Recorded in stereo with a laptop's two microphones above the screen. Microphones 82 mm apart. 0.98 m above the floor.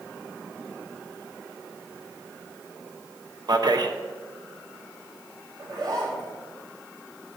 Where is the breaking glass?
No breaking glass in this recording.